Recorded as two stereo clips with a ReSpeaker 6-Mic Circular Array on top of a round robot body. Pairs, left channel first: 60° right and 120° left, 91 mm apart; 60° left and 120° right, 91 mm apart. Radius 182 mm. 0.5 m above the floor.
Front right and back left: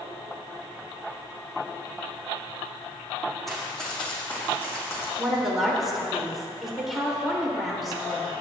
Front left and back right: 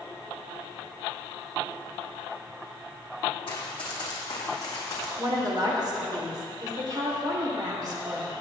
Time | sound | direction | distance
3.5 | running footsteps | 30° left | 1.7 m
5.2 | a woman speaking | 150° right | 2.5 m